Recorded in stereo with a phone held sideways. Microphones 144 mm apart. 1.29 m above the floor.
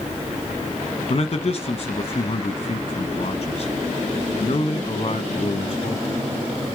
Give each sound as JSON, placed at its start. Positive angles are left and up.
{"t": 1.1, "sound": "a man speaking", "side_deg": 45, "distance_m": 1.3}